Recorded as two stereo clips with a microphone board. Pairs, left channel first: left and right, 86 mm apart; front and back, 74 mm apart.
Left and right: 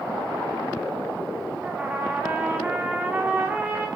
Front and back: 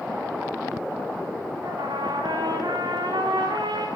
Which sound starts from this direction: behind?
A trumpet, at 1.6 s.